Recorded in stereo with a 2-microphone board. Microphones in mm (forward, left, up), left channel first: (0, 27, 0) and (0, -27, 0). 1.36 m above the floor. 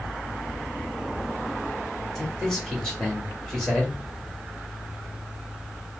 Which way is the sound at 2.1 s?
10° left (ahead or behind).